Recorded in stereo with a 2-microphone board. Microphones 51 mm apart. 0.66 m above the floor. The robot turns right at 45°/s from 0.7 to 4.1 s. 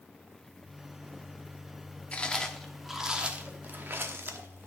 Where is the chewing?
25° left (ahead or behind), 0.9 m; by 4.7 s 50° right (ahead or behind), 0.9 m.